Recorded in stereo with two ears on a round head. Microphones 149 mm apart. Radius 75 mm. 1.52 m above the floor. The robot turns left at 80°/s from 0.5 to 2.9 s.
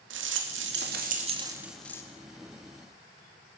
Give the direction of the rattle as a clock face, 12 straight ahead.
3 o'clock.